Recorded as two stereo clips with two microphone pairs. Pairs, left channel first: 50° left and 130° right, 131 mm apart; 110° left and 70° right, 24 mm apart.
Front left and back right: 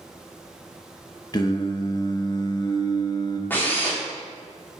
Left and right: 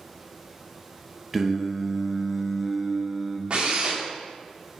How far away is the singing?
About 0.9 m.